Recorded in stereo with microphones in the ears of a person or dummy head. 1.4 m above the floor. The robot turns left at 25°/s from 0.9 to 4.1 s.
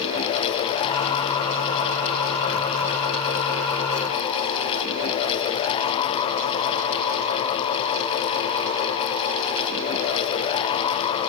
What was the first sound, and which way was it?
Only background noise.